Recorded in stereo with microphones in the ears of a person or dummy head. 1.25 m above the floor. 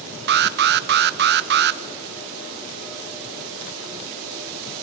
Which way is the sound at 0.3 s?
50° right (ahead or behind).